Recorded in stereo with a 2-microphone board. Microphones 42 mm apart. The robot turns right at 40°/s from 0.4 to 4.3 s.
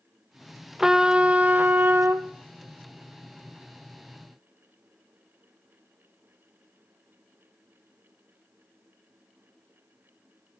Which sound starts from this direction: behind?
A trumpet, at 0.8 s.